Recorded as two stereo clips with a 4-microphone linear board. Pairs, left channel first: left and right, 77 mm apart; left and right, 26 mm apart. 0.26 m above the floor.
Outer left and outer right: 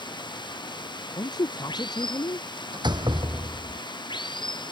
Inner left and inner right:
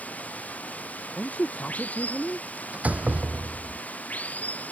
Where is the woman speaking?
60° left (ahead or behind).